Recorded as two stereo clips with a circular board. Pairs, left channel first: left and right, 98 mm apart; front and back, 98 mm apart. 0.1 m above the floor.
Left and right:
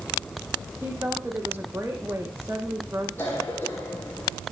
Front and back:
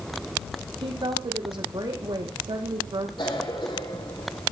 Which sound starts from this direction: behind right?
A woman speaking, at 0.8 s.